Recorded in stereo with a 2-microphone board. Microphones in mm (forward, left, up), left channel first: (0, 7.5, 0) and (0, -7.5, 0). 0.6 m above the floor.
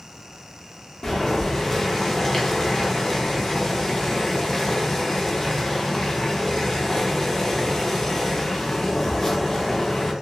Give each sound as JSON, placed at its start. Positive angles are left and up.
{"t": 1.0, "sound": "boiling", "side_deg": 35, "distance_m": 0.6}